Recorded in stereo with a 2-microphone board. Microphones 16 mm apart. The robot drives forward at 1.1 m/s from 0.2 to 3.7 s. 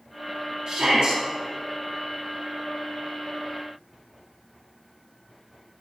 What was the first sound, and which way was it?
A shout, 55° right (ahead or behind).